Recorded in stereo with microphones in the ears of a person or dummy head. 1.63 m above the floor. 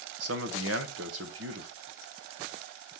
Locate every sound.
0.2 s a man speaking: 85° right, 1.0 m